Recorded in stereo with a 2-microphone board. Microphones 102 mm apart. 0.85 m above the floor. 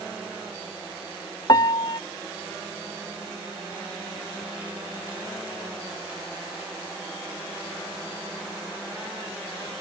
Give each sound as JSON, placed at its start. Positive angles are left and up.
{"t": 1.5, "sound": "a piano", "side_deg": 40}